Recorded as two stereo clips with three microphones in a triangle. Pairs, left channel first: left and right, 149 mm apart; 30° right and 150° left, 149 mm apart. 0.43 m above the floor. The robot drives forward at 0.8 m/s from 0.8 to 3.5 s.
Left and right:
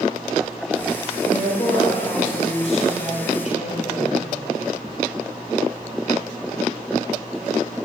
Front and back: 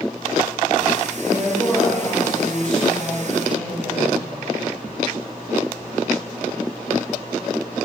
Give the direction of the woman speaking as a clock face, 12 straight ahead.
11 o'clock.